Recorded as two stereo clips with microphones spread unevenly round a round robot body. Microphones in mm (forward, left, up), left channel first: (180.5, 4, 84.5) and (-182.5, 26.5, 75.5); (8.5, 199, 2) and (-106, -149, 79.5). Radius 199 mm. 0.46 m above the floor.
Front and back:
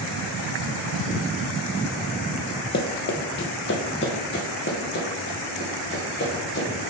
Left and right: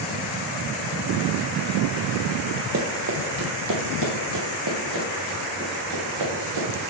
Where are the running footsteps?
60° right, 0.8 m; by 6.7 s 65° right, 3 m.